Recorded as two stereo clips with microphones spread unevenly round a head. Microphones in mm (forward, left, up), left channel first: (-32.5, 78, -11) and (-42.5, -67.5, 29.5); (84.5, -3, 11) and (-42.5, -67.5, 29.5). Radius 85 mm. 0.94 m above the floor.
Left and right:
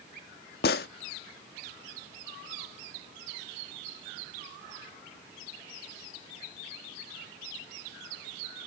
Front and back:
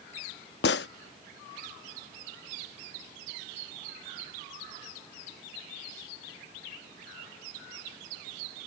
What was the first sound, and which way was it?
A gunshot, 45° left.